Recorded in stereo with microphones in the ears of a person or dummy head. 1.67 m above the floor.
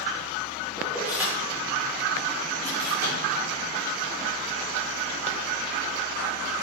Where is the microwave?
80° right, 4 m.